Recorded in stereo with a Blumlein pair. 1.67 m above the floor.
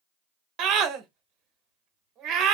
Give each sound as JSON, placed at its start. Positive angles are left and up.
{"t": 0.6, "sound": "a scream", "azimuth_deg": -30, "distance_m": 1.2}